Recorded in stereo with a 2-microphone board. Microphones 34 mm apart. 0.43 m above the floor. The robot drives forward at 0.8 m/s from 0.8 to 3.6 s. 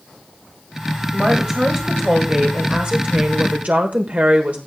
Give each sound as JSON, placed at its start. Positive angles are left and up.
{"t": 1.1, "sound": "a woman speaking", "side_deg": -25, "distance_m": 2.5}